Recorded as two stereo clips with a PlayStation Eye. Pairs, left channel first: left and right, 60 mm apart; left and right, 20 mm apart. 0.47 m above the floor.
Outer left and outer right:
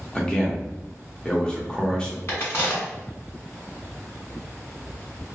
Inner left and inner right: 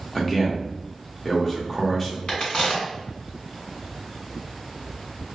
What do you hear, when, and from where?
0.1 s a man speaking: 15° left (ahead or behind), 0.7 m
2.3 s a crack: 50° left (ahead or behind), 1.9 m